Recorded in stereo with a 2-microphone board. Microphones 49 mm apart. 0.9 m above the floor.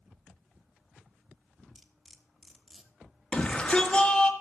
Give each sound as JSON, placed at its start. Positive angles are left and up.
{"t": 1.8, "sound": "cutlery clinking", "side_deg": -5, "distance_m": 1.3}
{"t": 3.3, "sound": "a shout", "side_deg": 20, "distance_m": 1.7}